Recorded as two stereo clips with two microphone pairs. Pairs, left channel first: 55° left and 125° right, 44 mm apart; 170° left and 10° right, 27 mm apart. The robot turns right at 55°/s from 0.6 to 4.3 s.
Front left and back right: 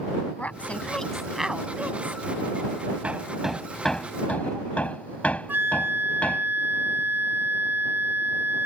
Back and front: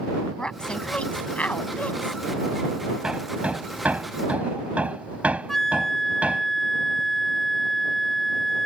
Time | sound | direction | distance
0.4 | a woman speaking | 110° left | ?
3.0 | hammering | 65° right | ?
5.5 | a flute | 120° right | ?